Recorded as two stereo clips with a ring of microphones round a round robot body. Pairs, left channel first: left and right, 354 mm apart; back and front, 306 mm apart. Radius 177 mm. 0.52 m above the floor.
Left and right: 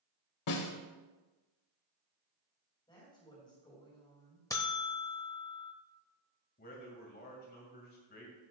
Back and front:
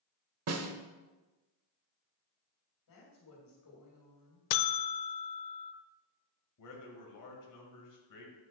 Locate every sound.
0.5 s a snare drum: 45° left, 1.0 m
2.9 s a woman speaking: 165° left, 3.5 m
4.5 s a buzzer: 170° left, 0.5 m
6.6 s a man speaking: 155° left, 2 m